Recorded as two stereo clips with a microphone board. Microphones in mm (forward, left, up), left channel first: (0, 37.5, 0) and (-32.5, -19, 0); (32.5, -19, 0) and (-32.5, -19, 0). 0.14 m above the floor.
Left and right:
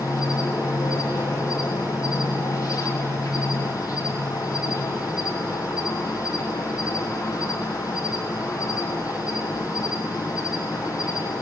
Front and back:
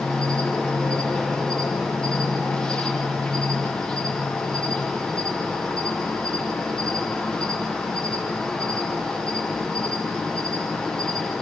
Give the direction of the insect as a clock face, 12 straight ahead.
10 o'clock.